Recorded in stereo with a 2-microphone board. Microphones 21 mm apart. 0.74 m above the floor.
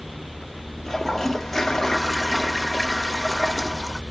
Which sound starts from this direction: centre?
A toilet flushing, at 0.8 s.